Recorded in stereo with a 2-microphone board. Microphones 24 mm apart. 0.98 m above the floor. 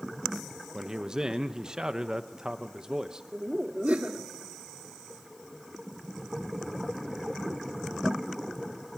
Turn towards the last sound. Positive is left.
turn(degrees=-65)  # may be behind; listen again after turning